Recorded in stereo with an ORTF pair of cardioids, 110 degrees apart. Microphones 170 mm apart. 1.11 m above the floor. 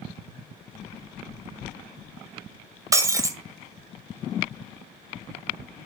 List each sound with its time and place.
2.9 s breaking glass: 20° right, 2 m